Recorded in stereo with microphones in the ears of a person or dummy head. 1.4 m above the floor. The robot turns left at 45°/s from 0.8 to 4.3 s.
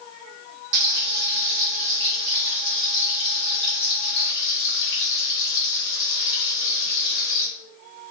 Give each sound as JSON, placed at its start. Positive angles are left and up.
{"t": 0.7, "sound": "frying", "azimuth_deg": -95, "distance_m": 0.9}